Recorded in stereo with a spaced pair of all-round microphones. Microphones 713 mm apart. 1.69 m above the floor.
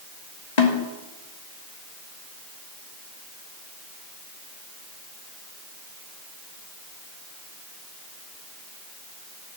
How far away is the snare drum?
About 2.5 m.